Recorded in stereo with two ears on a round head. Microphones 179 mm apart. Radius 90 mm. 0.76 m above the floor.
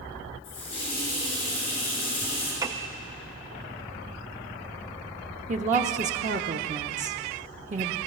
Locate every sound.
0.4 s a running tap: 30° left (ahead or behind), 6 m
2.6 s a piano: 15° right (ahead or behind), 0.5 m
5.5 s a woman speaking: 40° right (ahead or behind), 0.8 m